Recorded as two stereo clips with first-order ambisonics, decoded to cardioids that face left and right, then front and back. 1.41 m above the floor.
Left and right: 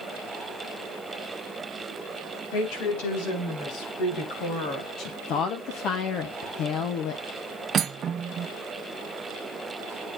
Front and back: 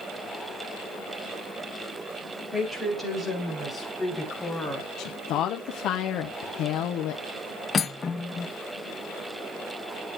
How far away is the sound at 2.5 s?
About 4 m.